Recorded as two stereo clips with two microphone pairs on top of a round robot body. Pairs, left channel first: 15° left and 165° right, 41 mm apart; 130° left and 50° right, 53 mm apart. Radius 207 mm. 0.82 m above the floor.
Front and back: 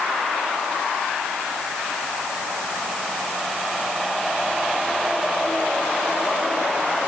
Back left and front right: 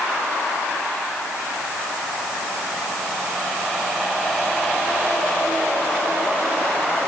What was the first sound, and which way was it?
Only background noise.